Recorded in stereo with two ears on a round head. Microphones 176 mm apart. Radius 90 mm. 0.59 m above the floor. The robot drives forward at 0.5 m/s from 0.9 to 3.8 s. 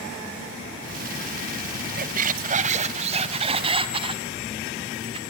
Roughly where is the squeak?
Right.